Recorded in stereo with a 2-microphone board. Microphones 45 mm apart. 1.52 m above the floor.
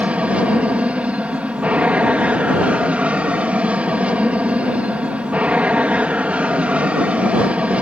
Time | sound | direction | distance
0.0 | an aircraft | 30° right (ahead or behind) | ?